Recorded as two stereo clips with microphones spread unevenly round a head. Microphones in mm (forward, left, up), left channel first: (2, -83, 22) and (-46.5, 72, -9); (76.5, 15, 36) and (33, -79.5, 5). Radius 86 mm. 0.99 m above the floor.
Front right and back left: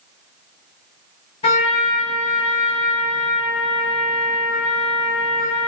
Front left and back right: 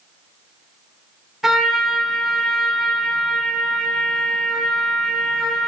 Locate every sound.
1.4 s a trumpet: 20° right, 1.8 m